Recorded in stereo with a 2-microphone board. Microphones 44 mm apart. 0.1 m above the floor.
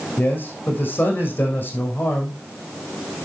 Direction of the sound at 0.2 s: 40° left (ahead or behind).